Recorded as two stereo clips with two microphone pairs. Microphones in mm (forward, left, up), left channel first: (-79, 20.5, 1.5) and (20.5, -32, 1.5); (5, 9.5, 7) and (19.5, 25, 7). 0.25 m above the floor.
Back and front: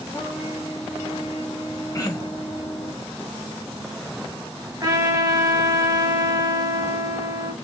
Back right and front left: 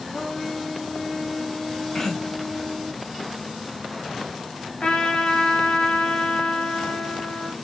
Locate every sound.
0.1 s a trumpet: 170° right, 1.5 m
1.9 s throat clearing: 170° right, 0.7 m
4.8 s a trumpet: 85° right, 1.1 m